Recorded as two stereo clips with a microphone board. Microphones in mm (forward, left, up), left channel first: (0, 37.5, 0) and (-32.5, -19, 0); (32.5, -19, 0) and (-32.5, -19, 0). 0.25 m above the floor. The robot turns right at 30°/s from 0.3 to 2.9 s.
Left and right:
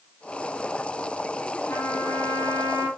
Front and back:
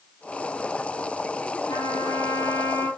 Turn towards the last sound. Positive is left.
turn(degrees=50)